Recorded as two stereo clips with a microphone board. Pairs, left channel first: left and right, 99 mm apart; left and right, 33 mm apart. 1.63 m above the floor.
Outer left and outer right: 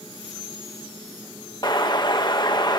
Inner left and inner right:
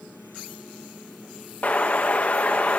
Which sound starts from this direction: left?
An explosion, at 1.6 s.